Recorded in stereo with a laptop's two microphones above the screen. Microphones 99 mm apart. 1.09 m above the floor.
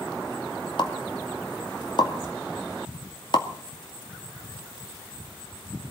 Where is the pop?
50° left (ahead or behind), 2.5 m.